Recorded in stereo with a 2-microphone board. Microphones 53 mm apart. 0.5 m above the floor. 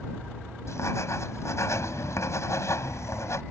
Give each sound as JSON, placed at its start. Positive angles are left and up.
{"t": 0.7, "sound": "writing", "side_deg": 60}